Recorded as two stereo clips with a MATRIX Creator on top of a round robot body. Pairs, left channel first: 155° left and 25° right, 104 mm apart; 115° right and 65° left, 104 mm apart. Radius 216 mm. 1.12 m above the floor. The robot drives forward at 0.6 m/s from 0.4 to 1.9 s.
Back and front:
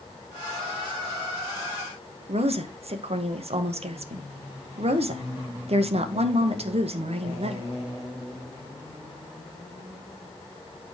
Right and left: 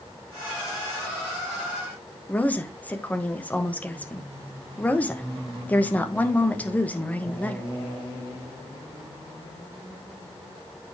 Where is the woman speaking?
35° right, 1.5 m.